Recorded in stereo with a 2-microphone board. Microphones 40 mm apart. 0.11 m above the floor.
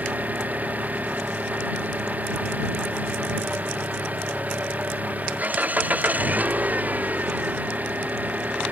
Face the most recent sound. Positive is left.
turn(degrees=-40)  # may be behind; listen again after turning